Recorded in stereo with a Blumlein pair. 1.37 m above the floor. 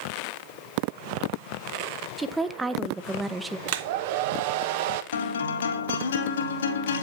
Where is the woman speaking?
10° right, 1.0 m.